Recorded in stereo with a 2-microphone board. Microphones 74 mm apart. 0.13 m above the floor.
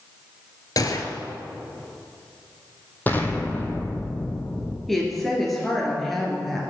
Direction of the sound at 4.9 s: Centre (ahead or behind).